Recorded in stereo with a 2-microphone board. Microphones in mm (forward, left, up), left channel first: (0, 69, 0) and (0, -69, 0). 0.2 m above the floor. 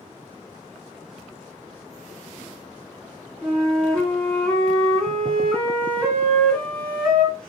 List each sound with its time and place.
3.4 s a flute: 10° left (ahead or behind), 2 m